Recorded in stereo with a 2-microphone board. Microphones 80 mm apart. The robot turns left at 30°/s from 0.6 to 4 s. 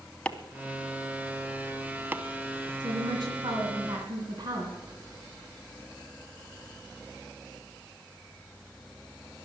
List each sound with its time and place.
0.2 s chopping: 15° left (ahead or behind), 0.8 m; by 2.2 s 25° right (ahead or behind), 0.8 m
2.8 s a woman speaking: 75° right, 2.5 m; by 4.8 s 110° right, 2.5 m